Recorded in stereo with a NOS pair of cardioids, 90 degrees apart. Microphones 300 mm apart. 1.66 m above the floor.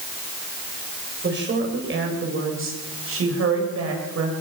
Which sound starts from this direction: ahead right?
A woman speaking, at 1.2 s.